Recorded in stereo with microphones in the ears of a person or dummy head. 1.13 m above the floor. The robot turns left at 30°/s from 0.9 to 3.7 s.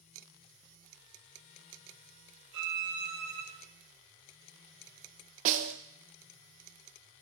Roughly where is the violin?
Right.